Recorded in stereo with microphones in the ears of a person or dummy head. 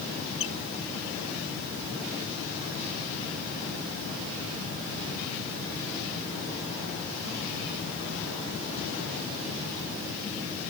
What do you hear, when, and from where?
0.4 s a squeak: 35° left (ahead or behind)